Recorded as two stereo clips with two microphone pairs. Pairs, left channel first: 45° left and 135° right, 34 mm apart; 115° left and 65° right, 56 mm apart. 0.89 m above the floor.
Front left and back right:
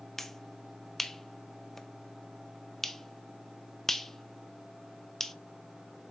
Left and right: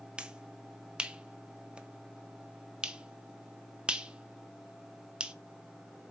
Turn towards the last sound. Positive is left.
turn(degrees=-20)